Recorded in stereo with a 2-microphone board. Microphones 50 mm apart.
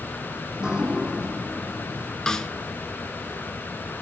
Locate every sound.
0.5 s dripping: 15° right (ahead or behind), 3.5 m
2.3 s a snare drum: 10° left (ahead or behind), 1.5 m